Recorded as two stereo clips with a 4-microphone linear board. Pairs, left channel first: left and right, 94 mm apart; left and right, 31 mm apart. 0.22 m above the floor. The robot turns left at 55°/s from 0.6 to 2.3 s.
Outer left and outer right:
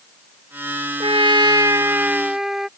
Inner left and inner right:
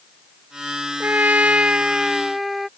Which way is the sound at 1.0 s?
105° right.